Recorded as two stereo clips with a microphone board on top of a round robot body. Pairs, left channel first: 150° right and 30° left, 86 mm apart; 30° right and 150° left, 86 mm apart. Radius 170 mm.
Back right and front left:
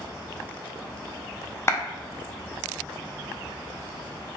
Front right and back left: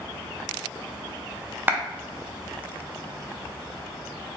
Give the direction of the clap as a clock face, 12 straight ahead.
6 o'clock.